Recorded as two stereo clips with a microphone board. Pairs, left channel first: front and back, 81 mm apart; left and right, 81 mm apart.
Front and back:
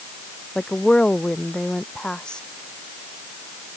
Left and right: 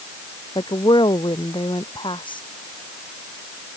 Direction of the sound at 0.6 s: 80° left.